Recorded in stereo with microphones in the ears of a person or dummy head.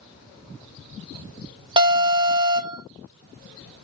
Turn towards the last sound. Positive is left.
turn(degrees=-20)  # may be behind; listen again after turning